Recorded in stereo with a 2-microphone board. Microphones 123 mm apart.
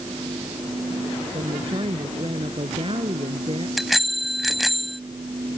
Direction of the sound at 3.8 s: Centre (ahead or behind).